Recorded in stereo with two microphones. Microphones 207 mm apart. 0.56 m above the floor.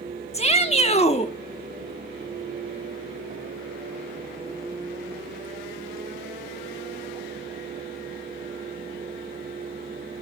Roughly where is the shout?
Left.